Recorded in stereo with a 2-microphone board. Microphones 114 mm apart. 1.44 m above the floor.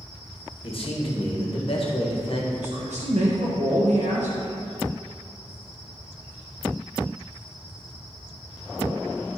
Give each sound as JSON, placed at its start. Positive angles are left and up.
{"t": 0.6, "sound": "a man speaking", "side_deg": 55, "distance_m": 1.6}
{"t": 2.6, "sound": "a man speaking", "side_deg": -85, "distance_m": 1.4}